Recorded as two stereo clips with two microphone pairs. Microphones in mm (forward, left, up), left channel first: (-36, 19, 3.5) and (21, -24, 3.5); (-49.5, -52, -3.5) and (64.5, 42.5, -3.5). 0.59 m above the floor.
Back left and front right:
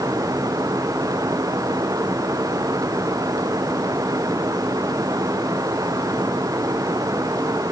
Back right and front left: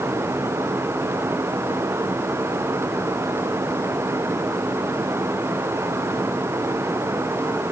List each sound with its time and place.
Only background noise.